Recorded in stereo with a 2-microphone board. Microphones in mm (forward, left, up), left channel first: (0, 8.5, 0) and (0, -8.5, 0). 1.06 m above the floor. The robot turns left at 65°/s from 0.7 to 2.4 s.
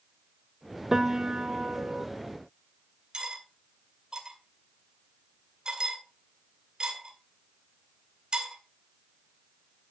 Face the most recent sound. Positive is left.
turn(degrees=-50)  # may be behind; listen again after turning